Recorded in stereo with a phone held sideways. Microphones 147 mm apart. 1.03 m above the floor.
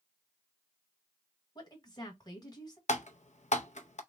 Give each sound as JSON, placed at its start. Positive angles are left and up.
{"t": 1.6, "sound": "a woman speaking", "side_deg": 30, "distance_m": 1.4}
{"t": 2.9, "sound": "typing on a keyboard", "side_deg": 55, "distance_m": 0.5}